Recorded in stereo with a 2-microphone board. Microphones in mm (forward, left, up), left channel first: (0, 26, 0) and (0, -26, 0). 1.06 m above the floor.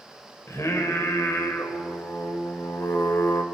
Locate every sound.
0.5 s singing: 75° left (ahead or behind), 2.5 m